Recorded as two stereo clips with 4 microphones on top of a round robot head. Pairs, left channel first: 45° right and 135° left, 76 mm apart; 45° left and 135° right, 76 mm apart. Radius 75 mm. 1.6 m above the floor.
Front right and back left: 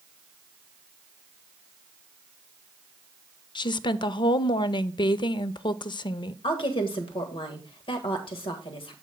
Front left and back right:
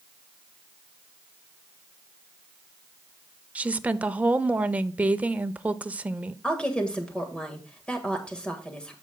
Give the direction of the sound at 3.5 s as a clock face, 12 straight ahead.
2 o'clock.